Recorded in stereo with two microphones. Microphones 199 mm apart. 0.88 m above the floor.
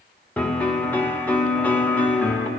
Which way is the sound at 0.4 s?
10° left (ahead or behind).